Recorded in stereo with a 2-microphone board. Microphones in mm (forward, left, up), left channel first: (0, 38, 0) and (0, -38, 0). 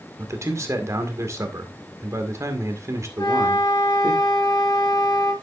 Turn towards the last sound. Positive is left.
turn(degrees=60)  # may be behind; listen again after turning